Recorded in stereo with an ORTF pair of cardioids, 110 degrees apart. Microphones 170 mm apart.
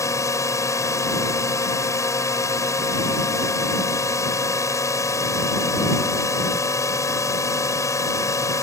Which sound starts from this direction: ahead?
A drone, at 0.0 s.